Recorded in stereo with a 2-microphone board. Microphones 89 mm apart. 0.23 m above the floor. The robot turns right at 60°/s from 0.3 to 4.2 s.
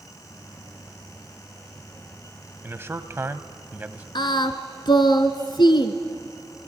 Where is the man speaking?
25° right (ahead or behind), 1.0 m; by 4.0 s 15° right (ahead or behind), 1.0 m.